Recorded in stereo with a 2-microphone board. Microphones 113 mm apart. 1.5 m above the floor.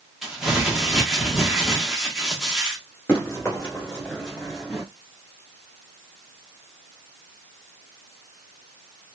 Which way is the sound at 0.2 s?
5° right (ahead or behind).